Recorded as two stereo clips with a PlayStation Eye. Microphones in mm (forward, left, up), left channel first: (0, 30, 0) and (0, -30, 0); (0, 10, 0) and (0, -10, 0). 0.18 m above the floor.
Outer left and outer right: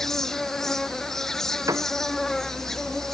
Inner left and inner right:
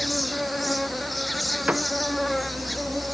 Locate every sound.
0.0 s an insect: 5° left (ahead or behind)
1.7 s a piano: 70° right (ahead or behind)